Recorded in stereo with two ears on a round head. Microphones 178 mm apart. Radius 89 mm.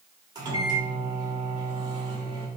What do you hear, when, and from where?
0.3 s a microwave: 20° right (ahead or behind), 1.4 m